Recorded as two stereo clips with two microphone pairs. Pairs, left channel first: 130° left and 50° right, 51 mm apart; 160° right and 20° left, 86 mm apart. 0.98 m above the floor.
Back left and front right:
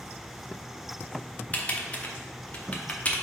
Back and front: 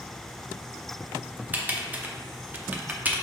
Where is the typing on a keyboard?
80° left, 0.5 m.